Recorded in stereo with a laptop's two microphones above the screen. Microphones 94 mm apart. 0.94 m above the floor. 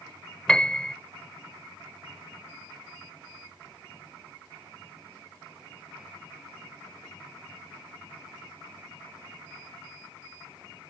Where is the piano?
10° left (ahead or behind).